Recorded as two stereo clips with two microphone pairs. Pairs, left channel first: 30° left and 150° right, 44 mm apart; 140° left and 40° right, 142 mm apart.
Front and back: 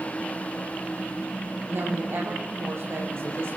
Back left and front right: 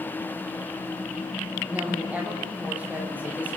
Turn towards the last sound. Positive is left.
turn(degrees=-120)